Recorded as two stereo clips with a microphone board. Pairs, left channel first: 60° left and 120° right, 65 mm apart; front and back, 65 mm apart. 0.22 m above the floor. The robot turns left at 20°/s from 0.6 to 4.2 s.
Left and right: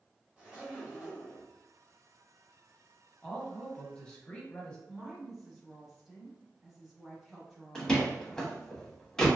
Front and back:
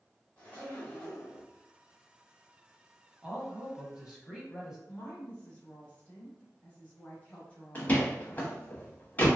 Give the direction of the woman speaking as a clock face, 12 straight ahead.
1 o'clock.